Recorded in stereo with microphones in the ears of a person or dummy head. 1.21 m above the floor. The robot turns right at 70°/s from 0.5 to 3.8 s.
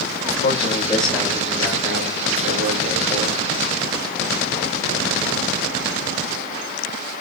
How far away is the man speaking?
About 5 m.